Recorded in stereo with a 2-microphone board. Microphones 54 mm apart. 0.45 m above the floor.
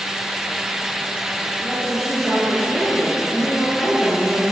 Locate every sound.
1.6 s a woman speaking: 5° left (ahead or behind), 6 m